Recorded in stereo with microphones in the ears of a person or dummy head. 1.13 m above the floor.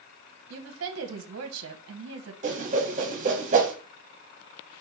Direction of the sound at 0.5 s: 60° right (ahead or behind).